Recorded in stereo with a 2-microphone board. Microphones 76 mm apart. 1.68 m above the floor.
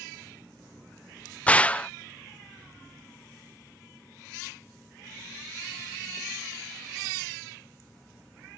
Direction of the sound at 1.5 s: 20° left (ahead or behind).